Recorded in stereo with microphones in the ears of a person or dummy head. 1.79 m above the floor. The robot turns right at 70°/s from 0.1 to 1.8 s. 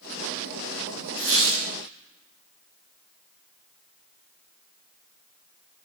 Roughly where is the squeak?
Right.